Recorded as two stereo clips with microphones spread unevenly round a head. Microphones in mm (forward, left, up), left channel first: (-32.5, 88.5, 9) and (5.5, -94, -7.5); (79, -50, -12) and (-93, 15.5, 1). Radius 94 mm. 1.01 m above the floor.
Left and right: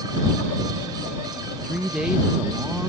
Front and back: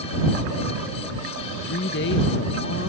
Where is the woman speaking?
5° left.